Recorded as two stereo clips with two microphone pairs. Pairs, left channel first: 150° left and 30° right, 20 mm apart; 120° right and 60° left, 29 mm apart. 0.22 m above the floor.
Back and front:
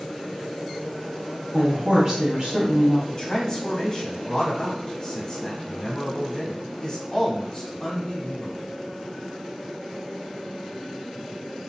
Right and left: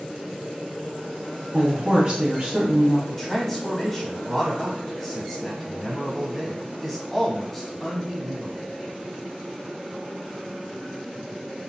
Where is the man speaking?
160° left, 1.1 m.